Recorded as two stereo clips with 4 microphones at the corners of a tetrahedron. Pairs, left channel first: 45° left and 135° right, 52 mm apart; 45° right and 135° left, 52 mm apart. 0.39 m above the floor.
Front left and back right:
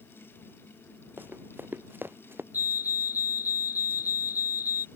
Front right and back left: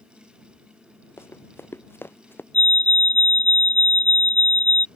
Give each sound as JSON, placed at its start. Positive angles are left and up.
{"t": 1.2, "sound": "running footsteps", "azimuth_deg": -85}
{"t": 2.5, "sound": "a fire alarm", "azimuth_deg": -100}